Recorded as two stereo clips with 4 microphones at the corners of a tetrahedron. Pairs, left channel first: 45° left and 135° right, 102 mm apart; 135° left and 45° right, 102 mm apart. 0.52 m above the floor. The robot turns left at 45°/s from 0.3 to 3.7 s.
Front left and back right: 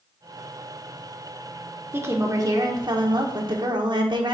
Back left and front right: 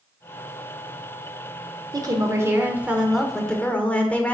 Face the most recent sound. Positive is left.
turn(degrees=-155)